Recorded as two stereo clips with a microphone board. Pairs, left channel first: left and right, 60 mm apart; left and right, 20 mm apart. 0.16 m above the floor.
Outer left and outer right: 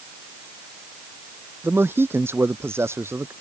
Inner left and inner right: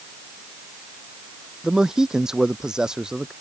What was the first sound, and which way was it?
A man speaking, 40° right (ahead or behind).